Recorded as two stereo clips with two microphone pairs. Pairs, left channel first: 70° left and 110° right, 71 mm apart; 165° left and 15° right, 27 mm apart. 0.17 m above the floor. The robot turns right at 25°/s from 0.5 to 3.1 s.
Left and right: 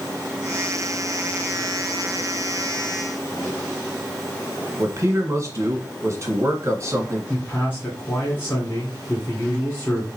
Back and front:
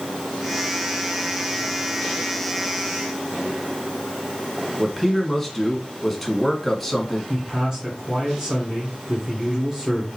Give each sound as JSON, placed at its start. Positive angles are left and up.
{"t": 4.8, "sound": "a man speaking", "azimuth_deg": -115, "distance_m": 1.6}
{"t": 7.3, "sound": "a man speaking", "azimuth_deg": 35, "distance_m": 1.9}